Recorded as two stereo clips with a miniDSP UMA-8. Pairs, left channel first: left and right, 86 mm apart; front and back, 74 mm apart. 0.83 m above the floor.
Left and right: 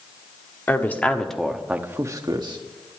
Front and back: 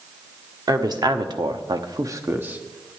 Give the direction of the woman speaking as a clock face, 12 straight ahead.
7 o'clock.